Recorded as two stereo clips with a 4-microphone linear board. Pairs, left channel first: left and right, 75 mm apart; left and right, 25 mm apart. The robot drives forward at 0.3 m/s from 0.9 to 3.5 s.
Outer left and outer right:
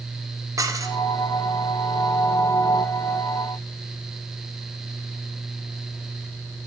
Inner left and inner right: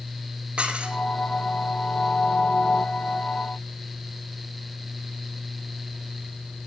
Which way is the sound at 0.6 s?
50° right (ahead or behind).